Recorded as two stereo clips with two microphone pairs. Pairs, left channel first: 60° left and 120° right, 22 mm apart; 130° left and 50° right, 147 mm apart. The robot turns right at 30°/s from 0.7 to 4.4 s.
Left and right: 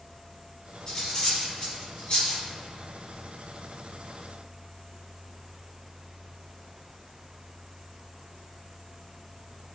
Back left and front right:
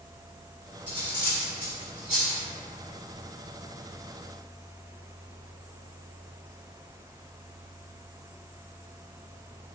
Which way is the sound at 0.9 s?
Straight ahead.